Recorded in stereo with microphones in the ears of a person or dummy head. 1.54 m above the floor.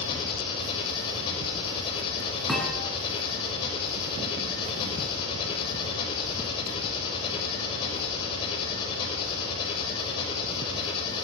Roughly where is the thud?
Centre.